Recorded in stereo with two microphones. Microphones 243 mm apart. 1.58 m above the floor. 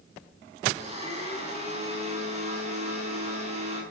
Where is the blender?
25° right (ahead or behind), 7.5 m.